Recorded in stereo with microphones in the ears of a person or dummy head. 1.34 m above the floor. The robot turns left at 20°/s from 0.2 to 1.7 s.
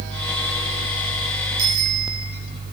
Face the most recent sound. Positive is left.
turn(degrees=-70)  # may be behind; listen again after turning